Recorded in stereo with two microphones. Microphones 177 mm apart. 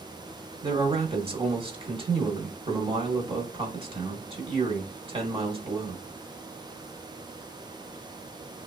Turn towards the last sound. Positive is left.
turn(degrees=-30)  # may be behind; listen again after turning